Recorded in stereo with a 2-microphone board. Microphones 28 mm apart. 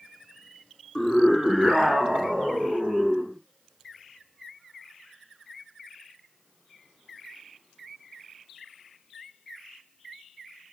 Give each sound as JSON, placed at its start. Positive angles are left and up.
{"t": 0.9, "sound": "a scream", "side_deg": 10, "distance_m": 1.8}